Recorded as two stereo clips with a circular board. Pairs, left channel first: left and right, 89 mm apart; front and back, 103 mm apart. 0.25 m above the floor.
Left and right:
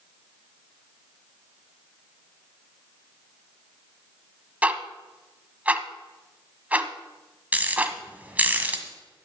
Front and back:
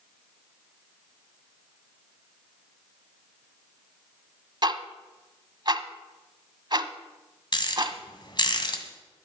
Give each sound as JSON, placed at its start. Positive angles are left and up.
{"t": 4.6, "sound": "ticking", "azimuth_deg": -160, "distance_m": 1.0}
{"t": 7.5, "sound": "a rattle", "azimuth_deg": -25, "distance_m": 2.0}